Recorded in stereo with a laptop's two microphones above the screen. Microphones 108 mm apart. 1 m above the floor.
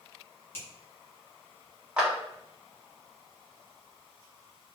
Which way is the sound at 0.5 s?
20° left (ahead or behind).